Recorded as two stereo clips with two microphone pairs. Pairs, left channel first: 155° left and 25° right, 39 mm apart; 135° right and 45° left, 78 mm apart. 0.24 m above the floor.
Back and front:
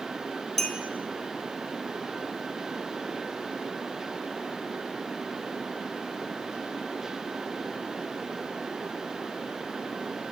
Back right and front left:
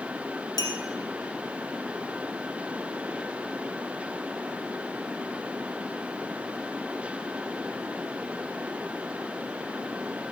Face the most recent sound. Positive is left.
turn(degrees=-130)